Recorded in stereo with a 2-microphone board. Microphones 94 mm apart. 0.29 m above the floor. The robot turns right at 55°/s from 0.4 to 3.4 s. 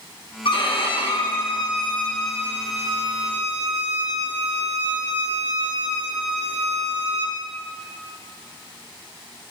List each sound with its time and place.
0.5 s a violin: 75° left, 2 m; by 7.4 s 120° right, 2 m